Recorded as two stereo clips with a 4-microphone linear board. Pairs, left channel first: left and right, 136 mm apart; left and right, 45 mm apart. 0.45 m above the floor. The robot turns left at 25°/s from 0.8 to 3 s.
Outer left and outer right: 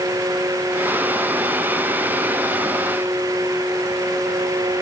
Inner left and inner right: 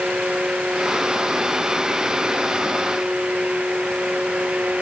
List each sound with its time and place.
Only background noise.